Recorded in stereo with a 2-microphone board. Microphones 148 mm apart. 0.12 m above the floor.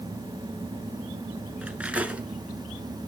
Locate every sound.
1.6 s cutlery clinking: 10° right (ahead or behind), 0.8 m